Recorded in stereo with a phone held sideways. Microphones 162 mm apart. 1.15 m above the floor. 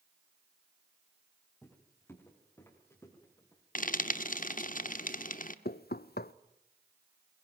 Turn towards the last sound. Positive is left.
turn(degrees=75)  # may be behind; listen again after turning